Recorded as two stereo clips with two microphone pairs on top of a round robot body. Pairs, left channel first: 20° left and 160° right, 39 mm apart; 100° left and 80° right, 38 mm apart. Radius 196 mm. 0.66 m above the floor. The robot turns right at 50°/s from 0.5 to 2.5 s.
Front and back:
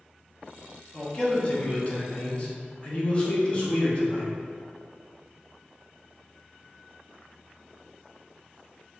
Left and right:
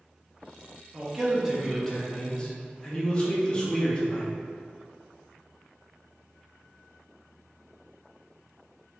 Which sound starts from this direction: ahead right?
A man speaking, at 0.9 s.